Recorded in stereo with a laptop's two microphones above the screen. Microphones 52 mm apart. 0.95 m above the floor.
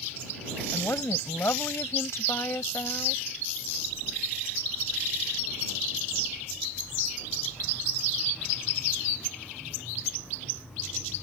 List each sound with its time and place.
0.7 s a woman speaking: 65° left (ahead or behind)